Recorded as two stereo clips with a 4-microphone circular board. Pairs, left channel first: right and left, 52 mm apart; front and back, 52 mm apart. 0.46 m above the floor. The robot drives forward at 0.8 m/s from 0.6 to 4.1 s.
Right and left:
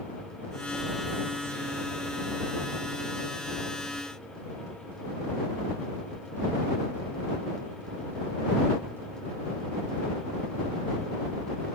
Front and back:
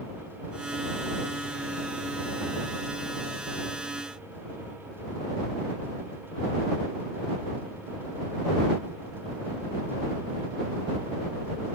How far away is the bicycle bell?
No bicycle bell in this recording.